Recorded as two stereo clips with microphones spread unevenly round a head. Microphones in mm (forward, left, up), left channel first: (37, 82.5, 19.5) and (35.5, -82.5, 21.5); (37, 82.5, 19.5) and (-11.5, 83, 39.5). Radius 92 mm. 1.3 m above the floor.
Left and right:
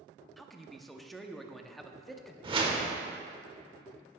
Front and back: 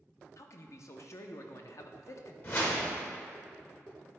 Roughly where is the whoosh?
Ahead right.